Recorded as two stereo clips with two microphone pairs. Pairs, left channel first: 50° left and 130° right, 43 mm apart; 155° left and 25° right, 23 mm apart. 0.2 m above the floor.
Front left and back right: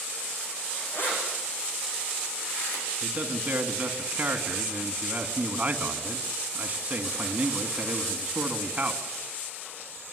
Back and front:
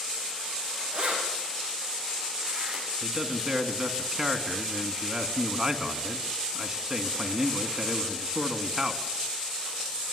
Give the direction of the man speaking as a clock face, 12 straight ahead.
3 o'clock.